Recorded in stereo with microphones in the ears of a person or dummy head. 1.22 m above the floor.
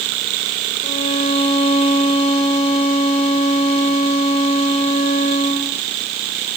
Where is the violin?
35° left (ahead or behind), 4.5 m.